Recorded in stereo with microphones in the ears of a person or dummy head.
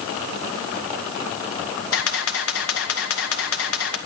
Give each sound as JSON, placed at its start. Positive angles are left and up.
{"t": 1.9, "sound": "a camera shutter", "side_deg": 75, "distance_m": 1.8}